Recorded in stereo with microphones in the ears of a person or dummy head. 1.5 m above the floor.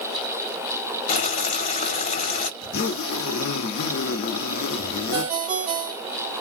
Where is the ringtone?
30° right (ahead or behind), 0.7 m.